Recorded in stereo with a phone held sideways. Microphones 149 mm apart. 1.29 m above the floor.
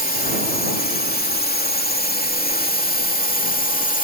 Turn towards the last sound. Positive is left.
turn(degrees=60)  # may be behind; listen again after turning